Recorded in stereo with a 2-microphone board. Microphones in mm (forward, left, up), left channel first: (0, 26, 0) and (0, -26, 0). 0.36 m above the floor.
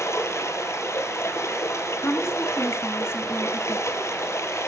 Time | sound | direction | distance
0.0 | running water | 65° left (ahead or behind) | 1.6 m
2.0 | a woman speaking | 55° left (ahead or behind) | 3 m